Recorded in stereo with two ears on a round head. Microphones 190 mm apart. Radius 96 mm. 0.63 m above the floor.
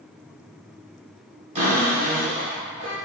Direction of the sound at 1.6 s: 30° right (ahead or behind).